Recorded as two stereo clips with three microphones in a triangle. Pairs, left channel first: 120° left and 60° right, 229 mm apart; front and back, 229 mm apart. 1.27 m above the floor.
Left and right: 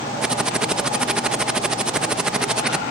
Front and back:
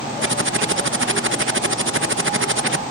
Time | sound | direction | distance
0.2 | typing on a keyboard | 145° right | ?